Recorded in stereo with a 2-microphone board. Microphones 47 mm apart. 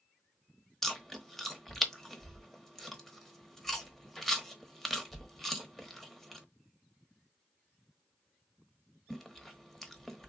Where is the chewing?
5° left (ahead or behind), 1.0 m.